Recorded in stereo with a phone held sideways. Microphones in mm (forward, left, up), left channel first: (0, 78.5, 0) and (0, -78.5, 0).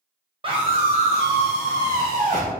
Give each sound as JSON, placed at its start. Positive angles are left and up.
{"t": 0.4, "sound": "a scream", "side_deg": -35, "distance_m": 0.8}